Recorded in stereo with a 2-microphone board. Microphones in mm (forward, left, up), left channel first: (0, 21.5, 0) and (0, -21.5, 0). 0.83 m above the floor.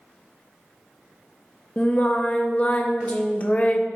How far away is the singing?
About 0.7 m.